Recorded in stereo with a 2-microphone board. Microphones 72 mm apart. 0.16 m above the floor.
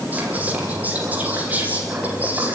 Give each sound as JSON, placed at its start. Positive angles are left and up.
{"t": 0.1, "sound": "whispering", "side_deg": -20, "distance_m": 5.5}